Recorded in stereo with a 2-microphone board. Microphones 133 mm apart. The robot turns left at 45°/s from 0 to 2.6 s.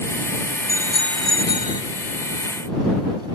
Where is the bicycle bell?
20° right; by 1.8 s 70° right.